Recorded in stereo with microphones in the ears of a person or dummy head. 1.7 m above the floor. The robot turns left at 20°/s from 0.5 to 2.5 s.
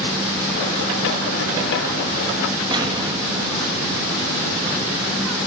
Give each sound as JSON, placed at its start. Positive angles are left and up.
{"t": 2.7, "sound": "an explosion", "side_deg": -25, "distance_m": 1.1}